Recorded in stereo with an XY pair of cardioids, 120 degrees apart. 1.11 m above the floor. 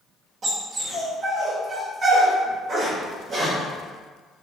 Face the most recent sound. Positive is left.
turn(degrees=-50)